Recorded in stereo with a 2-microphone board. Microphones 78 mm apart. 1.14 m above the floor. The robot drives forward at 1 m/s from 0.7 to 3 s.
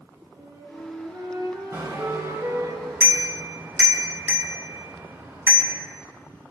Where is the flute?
60° right (ahead or behind), 5.5 m; by 2.7 s 45° right (ahead or behind), 7 m.